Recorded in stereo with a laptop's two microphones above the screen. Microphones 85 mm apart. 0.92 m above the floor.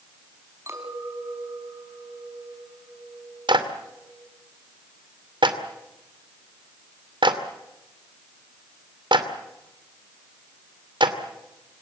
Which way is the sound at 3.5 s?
65° right (ahead or behind).